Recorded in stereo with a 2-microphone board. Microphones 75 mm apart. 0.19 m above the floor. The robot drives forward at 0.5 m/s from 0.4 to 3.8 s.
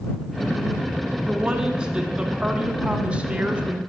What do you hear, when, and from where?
1.3 s a woman speaking: 10° right (ahead or behind), 1.9 m; by 3.8 s 20° right (ahead or behind), 1.2 m